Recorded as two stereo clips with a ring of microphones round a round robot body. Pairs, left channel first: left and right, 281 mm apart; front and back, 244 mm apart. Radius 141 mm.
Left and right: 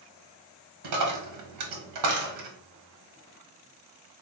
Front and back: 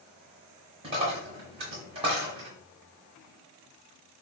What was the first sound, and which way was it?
A dropped coin, 110° right.